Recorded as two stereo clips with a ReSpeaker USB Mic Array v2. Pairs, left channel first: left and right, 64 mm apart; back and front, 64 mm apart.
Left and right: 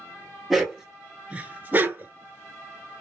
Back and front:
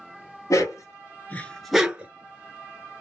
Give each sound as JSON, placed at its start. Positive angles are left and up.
{"t": 0.5, "sound": "a dog barking", "azimuth_deg": 180, "distance_m": 0.9}